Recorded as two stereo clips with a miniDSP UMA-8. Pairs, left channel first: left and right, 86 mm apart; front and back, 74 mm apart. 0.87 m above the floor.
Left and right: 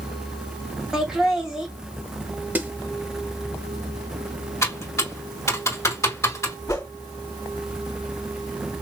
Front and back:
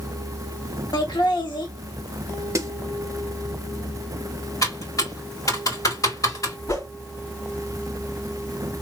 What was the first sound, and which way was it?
Laughter, 10° right.